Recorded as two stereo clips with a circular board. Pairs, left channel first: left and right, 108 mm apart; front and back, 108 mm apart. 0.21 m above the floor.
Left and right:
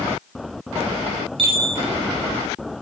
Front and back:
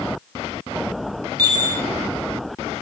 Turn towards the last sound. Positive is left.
turn(degrees=-125)